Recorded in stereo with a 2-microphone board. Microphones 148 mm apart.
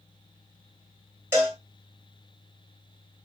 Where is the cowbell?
20° right (ahead or behind), 1.3 m.